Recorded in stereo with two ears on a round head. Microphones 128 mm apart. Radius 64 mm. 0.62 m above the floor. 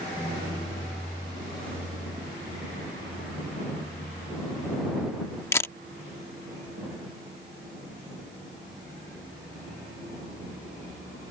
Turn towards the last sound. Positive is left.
turn(degrees=20)  # may be behind; listen again after turning